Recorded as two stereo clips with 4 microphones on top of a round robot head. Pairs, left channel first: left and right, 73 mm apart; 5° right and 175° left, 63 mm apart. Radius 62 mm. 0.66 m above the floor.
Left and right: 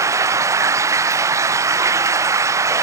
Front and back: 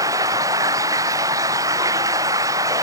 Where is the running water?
140° right.